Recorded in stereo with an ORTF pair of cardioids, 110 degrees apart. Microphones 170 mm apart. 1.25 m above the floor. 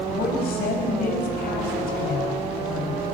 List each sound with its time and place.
0.1 s a woman speaking: 65° left, 6.5 m